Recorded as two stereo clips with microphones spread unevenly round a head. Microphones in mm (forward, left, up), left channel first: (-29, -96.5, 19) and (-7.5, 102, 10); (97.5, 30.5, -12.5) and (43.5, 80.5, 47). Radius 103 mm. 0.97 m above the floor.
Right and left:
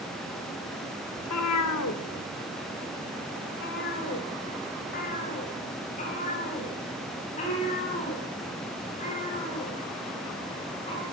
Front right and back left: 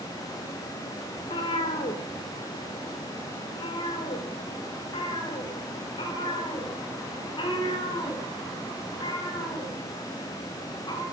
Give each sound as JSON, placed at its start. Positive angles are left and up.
{"t": 1.2, "sound": "a cat meowing", "azimuth_deg": -90, "distance_m": 1.4}